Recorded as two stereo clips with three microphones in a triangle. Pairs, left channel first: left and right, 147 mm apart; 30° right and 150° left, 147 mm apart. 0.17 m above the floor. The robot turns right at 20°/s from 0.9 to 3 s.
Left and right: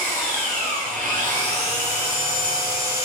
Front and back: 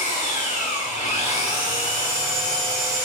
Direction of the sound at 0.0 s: Straight ahead.